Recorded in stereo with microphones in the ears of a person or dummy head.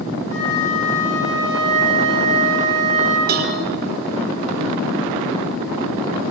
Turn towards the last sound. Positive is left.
turn(degrees=-50)  # may be behind; listen again after turning